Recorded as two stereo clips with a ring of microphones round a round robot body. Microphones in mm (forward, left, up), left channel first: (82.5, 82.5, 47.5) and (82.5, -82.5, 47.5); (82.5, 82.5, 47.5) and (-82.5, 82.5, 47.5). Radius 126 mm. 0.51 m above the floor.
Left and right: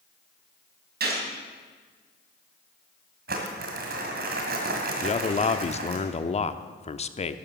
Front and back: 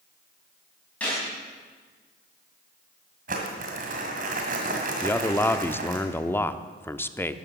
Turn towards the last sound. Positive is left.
turn(degrees=70)